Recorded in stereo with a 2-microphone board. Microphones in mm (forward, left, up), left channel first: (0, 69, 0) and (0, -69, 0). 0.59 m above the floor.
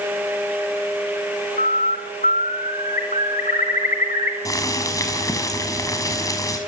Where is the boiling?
25° left (ahead or behind), 5 m.